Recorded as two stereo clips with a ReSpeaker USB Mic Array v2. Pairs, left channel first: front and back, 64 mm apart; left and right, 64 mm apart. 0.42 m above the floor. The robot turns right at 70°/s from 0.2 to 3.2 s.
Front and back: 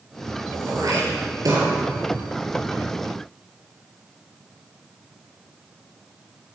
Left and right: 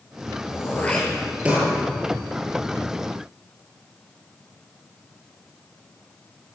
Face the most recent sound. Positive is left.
turn(degrees=-40)